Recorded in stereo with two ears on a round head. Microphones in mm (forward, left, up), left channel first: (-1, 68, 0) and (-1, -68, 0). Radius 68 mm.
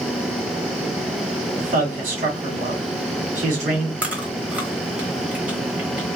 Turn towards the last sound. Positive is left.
turn(degrees=-10)  # may be behind; listen again after turning